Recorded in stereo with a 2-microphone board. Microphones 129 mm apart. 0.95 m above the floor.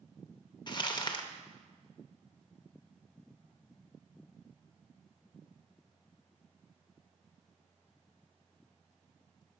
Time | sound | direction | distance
0.7 | crumpling | 35° left (ahead or behind) | 0.5 m